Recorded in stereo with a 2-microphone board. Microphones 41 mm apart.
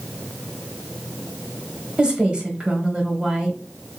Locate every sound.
2.0 s a woman speaking: 30° right (ahead or behind), 1.1 m